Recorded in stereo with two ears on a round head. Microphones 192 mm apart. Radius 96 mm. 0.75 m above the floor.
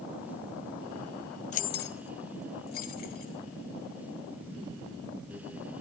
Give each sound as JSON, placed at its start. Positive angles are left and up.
{"t": 1.5, "sound": "keys jangling", "side_deg": 35, "distance_m": 0.6}